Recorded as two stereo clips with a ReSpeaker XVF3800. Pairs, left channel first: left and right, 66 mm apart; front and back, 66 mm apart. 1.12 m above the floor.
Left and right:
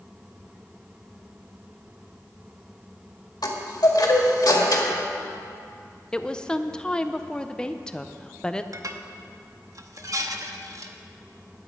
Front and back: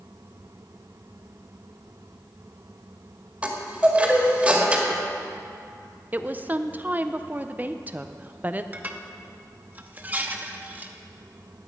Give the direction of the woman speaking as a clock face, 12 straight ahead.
7 o'clock.